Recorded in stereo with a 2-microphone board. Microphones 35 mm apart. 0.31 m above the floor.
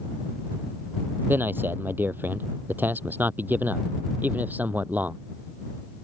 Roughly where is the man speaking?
Right.